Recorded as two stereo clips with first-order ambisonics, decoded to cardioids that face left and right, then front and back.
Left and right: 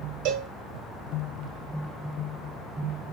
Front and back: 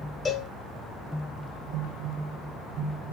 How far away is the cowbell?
About 0.8 m.